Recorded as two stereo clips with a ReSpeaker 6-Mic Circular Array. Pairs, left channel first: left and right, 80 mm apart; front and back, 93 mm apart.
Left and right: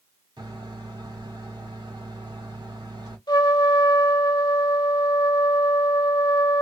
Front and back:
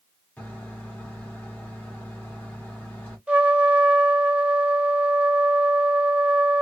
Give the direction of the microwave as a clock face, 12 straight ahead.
3 o'clock.